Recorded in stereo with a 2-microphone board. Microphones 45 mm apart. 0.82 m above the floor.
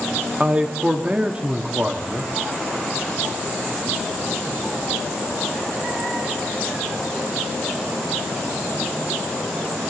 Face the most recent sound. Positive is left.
turn(degrees=-25)  # may be behind; listen again after turning